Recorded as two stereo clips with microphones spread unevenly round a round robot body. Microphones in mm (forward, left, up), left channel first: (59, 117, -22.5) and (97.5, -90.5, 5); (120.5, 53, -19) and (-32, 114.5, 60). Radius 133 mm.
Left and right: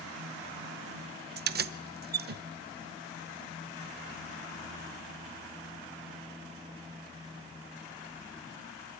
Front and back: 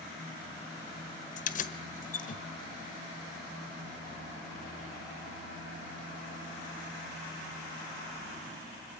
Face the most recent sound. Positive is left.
turn(degrees=-35)